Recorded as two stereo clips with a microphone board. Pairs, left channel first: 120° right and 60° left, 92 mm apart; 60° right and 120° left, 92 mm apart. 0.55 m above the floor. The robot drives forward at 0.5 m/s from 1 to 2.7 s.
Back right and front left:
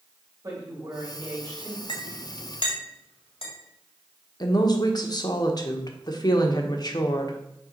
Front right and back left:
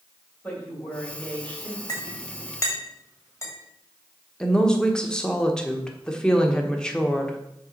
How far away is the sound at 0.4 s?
About 3.5 m.